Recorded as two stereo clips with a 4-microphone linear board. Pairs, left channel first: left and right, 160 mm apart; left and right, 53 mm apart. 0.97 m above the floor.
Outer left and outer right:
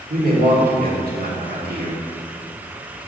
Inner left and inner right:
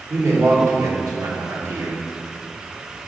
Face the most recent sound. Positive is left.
turn(degrees=-70)  # may be behind; listen again after turning